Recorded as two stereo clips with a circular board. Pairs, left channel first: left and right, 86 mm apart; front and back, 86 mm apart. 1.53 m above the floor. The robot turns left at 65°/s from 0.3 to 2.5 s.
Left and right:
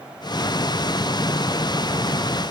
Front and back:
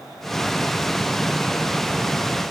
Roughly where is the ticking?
No ticking in this recording.